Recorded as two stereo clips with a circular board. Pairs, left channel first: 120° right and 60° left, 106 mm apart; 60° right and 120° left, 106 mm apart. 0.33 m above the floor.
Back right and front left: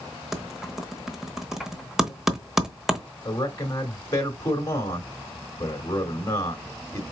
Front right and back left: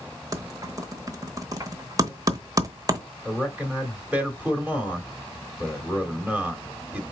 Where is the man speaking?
170° right, 1.3 m.